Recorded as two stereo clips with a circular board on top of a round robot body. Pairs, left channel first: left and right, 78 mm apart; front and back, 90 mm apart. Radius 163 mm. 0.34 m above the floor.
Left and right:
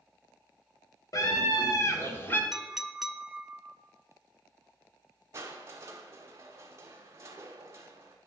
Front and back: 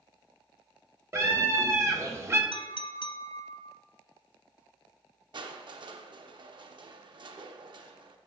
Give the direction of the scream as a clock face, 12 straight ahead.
8 o'clock.